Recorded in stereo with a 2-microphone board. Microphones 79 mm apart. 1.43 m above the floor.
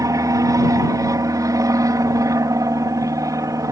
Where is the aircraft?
45° right (ahead or behind).